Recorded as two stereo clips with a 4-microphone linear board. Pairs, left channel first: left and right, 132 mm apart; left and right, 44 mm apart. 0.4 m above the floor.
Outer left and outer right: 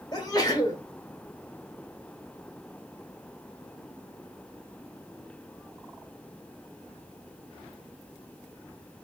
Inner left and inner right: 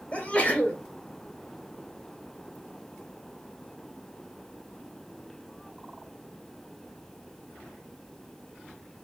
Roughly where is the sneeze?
Left.